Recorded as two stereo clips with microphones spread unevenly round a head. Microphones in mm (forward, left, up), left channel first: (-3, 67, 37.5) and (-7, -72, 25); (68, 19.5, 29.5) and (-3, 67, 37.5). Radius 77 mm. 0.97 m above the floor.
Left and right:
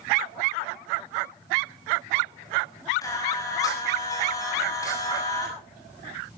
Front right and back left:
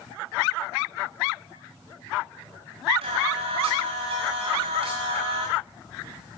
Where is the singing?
155° left, 7 m.